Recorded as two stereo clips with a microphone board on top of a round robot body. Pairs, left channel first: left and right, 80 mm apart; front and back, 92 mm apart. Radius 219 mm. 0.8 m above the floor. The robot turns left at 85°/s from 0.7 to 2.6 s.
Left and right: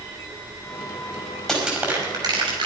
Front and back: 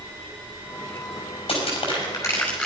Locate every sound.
1.5 s crushing: 5° left, 6 m; by 2.7 s 90° right, 6 m